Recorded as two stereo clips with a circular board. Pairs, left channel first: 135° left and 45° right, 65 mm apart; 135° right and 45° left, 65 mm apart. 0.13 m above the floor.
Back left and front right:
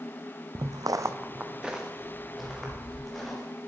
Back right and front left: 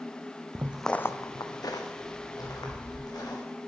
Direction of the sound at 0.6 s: 10° right.